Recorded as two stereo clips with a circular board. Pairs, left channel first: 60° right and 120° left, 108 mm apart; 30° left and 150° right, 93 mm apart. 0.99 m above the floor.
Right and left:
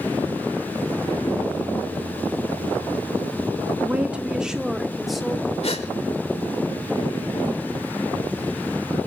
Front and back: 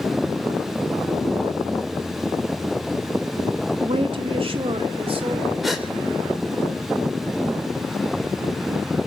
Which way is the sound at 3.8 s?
165° right.